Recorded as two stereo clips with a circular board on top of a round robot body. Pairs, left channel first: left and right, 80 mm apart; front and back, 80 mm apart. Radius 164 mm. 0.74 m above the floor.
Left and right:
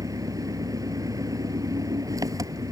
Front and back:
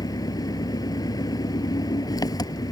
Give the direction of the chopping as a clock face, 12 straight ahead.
No chopping in this recording.